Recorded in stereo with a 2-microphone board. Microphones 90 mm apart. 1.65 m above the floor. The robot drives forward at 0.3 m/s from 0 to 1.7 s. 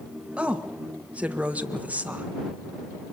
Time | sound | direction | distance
0.4 | a woman speaking | 15° right (ahead or behind) | 2 m